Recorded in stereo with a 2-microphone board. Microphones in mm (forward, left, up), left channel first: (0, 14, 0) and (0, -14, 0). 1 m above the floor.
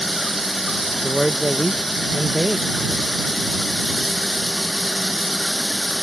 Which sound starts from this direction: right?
A man speaking, at 1.0 s.